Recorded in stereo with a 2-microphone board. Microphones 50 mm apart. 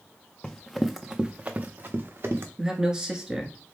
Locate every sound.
0.4 s running footsteps: 20° left (ahead or behind), 0.6 m; by 2.5 s 60° right (ahead or behind), 1.0 m
2.6 s a man speaking: 15° right (ahead or behind), 1.1 m